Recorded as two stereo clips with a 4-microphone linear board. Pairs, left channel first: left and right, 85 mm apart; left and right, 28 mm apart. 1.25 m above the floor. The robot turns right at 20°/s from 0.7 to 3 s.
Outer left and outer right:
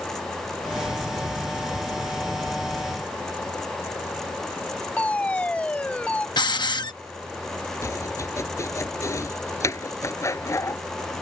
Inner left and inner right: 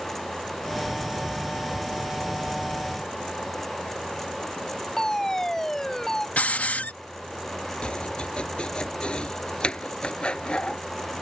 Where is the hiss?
60° left (ahead or behind).